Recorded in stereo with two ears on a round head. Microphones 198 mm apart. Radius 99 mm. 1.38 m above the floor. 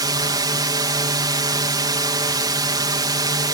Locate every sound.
0.0 s a drone: 20° right (ahead or behind)